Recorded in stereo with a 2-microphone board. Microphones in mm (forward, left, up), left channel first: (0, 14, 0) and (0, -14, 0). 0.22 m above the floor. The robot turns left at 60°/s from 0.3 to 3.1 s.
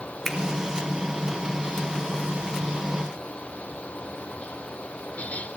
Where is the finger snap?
10° left (ahead or behind), 1.9 m.